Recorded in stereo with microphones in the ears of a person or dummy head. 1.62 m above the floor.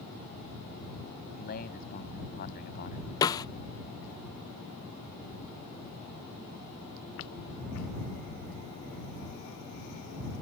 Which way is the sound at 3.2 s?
20° left (ahead or behind).